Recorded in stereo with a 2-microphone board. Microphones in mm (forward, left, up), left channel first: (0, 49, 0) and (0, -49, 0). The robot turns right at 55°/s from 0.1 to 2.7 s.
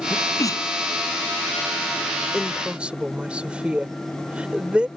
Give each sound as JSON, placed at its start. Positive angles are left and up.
{"t": 0.1, "sound": "a sneeze", "side_deg": 15}
{"t": 2.3, "sound": "a woman speaking", "side_deg": 10}